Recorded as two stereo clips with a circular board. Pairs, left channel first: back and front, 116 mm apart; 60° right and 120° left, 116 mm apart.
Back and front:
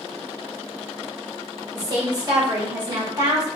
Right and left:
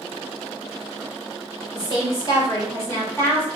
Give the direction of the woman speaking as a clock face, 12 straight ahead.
1 o'clock.